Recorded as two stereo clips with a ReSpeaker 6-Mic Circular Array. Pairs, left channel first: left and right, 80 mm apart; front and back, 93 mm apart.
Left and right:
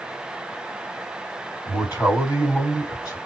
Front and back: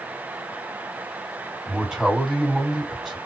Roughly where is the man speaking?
Left.